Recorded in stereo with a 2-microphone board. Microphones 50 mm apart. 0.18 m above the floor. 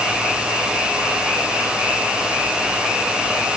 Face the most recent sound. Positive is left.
No sound to turn to.